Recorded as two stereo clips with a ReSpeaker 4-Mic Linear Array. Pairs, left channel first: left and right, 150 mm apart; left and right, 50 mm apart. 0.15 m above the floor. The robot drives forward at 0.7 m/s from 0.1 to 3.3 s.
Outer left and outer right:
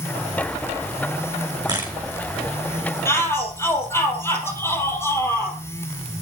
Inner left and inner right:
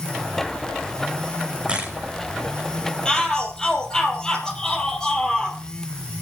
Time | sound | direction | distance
1.7 | a camera shutter | 25° right (ahead or behind) | 4.5 m
3.0 | a shout | 15° left (ahead or behind) | 4.5 m